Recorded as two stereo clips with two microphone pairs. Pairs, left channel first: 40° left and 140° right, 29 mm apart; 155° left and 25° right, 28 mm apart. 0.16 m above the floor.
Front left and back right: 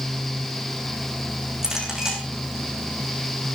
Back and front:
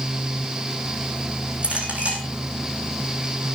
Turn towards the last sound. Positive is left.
turn(degrees=-65)